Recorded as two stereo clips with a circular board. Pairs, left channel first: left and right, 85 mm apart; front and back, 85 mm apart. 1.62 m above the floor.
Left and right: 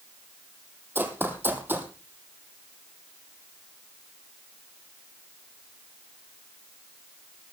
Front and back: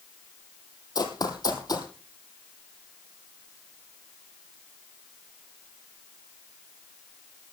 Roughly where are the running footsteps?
Ahead right.